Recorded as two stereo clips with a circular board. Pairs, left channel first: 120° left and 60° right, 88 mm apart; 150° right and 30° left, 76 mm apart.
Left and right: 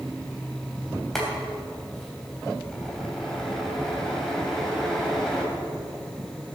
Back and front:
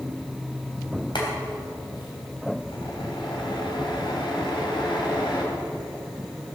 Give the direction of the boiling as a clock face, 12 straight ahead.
5 o'clock.